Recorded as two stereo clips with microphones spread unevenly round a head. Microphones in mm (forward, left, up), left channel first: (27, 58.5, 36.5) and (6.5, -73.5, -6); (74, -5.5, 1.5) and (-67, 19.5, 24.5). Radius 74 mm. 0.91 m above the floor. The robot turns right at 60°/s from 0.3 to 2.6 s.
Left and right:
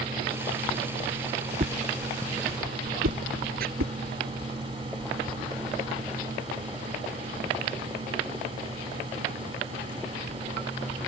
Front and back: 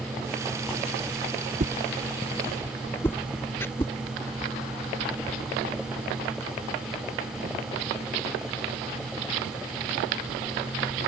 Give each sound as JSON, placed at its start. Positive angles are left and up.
{"t": 1.6, "sound": "a whoosh", "azimuth_deg": -145}
{"t": 3.6, "sound": "chopping", "azimuth_deg": -85}